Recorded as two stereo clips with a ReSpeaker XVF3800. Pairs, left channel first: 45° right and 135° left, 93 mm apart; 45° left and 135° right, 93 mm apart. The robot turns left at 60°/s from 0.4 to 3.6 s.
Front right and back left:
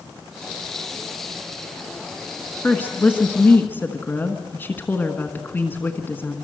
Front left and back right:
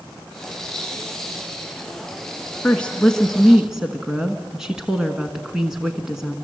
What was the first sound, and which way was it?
A woman speaking, straight ahead.